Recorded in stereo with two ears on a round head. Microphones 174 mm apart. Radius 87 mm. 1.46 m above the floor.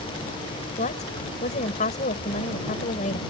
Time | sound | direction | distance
0.8 | a woman speaking | 40° left (ahead or behind) | ?